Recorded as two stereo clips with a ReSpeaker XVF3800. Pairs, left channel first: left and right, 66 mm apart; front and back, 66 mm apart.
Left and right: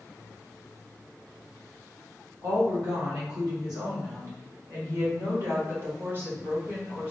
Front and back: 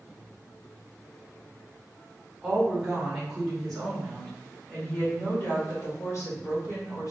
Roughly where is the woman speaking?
Right.